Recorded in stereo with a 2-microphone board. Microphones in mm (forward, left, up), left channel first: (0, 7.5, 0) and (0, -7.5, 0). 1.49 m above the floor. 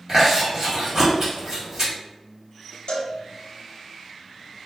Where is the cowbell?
65° left (ahead or behind), 0.5 m.